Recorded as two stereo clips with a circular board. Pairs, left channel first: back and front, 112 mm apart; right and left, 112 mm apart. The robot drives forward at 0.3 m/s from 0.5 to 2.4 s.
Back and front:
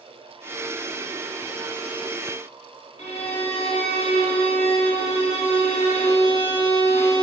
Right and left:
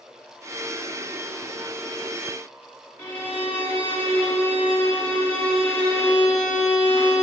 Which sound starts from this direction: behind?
A violin, at 3.0 s.